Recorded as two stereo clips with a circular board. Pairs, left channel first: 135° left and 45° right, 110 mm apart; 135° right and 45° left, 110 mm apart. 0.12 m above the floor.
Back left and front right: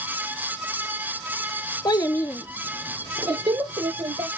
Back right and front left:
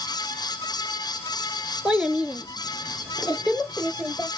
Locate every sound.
1.9 s a child speaking: 120° left, 1.0 m; by 4.3 s 40° right, 1.6 m